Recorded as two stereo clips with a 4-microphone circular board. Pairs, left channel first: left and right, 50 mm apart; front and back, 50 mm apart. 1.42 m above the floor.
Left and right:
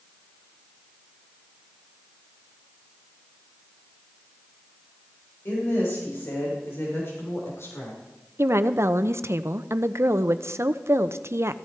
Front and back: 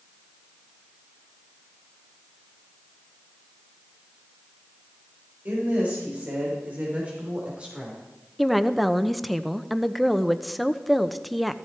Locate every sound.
5.5 s a woman speaking: 130° left, 6 m; by 8.0 s 110° left, 4.5 m
8.4 s a woman speaking: 90° right, 0.7 m